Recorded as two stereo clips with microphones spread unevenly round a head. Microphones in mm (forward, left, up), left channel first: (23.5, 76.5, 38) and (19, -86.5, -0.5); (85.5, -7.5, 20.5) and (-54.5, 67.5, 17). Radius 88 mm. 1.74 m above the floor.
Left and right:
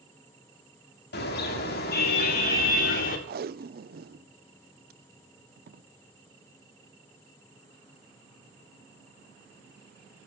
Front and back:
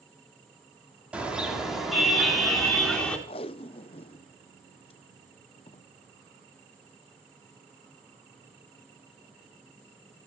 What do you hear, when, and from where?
1.1 s a car horn: 70° left, 6.5 m; by 3.2 s 55° left, 8 m
3.3 s tape being pulled: 70° right, 0.7 m